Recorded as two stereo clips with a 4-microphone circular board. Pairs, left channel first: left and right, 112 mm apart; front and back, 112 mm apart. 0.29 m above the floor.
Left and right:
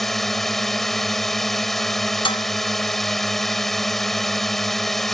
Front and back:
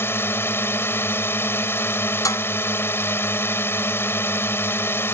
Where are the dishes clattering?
55° left.